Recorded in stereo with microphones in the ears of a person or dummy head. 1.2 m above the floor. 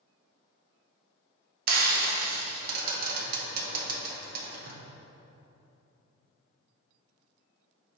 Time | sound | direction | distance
1.7 | frying | 55° right (ahead or behind) | 1.0 m